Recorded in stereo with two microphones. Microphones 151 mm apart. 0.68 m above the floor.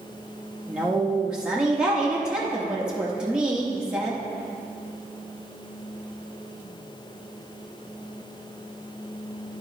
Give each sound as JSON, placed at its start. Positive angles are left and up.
{"t": 0.7, "sound": "a woman speaking", "side_deg": -5, "distance_m": 0.8}